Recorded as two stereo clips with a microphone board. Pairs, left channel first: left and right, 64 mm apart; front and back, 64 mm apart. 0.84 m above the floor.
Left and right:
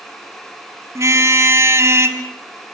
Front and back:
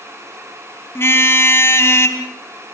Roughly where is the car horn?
Ahead right.